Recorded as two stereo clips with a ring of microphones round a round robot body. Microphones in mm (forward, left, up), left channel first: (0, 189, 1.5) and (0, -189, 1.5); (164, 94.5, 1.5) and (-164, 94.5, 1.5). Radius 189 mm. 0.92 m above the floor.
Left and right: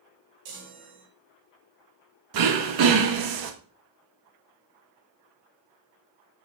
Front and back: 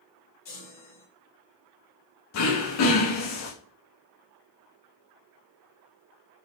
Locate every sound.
0.5 s a chime: 65° right, 1.9 m
2.3 s throat clearing: 50° right, 0.9 m